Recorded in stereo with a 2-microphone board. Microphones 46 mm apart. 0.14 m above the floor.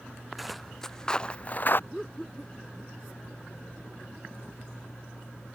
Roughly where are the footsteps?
Centre.